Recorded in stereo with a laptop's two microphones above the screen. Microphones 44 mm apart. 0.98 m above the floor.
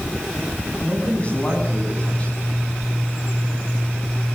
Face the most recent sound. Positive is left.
turn(degrees=25)  # may be behind; listen again after turning